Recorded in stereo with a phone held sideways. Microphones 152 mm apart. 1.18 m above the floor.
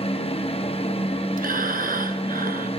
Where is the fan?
45° left (ahead or behind), 0.8 m.